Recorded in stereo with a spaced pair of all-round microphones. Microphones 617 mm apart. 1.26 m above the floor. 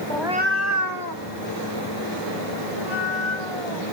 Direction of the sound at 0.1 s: 10° left (ahead or behind).